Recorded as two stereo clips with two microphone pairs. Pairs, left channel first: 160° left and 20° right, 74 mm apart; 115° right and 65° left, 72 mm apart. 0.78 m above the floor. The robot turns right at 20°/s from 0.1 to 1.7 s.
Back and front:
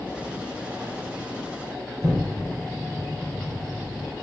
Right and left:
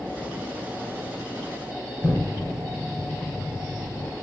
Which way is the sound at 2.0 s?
55° right.